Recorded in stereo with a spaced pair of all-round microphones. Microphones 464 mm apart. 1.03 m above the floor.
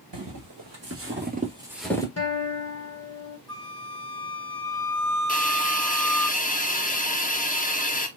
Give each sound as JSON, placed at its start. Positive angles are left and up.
{"t": 0.1, "sound": "footsteps", "side_deg": -45, "distance_m": 1.6}
{"t": 2.2, "sound": "a guitar", "side_deg": 30, "distance_m": 1.2}
{"t": 3.5, "sound": "a flute", "side_deg": 40, "distance_m": 2.0}
{"t": 5.3, "sound": "a hiss", "side_deg": 20, "distance_m": 0.6}